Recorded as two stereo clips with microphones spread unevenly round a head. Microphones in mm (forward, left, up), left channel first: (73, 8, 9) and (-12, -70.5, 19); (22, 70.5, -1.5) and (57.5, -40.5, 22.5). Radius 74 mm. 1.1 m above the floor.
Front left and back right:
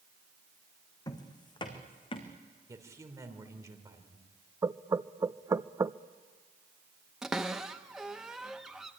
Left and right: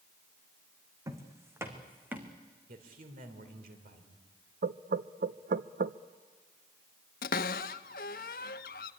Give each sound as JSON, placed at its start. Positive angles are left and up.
{"t": 1.1, "sound": "footsteps", "azimuth_deg": -15, "distance_m": 3.0}
{"t": 2.7, "sound": "a man speaking", "azimuth_deg": -75, "distance_m": 3.0}
{"t": 4.6, "sound": "knocking", "azimuth_deg": -75, "distance_m": 0.6}
{"t": 7.2, "sound": "a cupboard door", "azimuth_deg": 135, "distance_m": 0.8}